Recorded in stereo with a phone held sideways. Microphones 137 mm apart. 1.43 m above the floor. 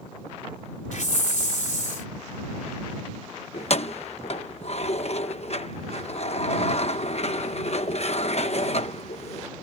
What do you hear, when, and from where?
0.9 s a hiss: 65° left (ahead or behind)
3.5 s keys jangling: 50° left (ahead or behind)